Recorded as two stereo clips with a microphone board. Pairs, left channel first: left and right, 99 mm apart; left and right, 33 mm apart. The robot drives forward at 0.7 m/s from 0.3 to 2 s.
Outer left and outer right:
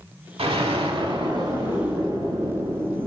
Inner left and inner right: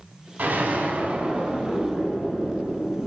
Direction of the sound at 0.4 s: 75° right (ahead or behind).